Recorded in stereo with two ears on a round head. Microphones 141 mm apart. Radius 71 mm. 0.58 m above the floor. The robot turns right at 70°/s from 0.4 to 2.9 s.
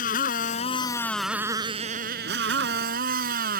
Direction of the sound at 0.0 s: 120° left.